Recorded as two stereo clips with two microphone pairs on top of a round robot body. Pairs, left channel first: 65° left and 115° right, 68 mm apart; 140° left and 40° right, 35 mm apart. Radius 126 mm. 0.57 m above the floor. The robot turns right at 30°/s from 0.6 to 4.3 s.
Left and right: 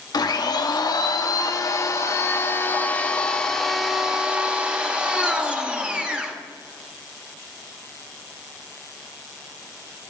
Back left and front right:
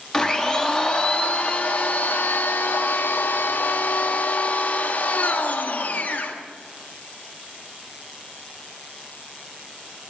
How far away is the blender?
About 1.1 m.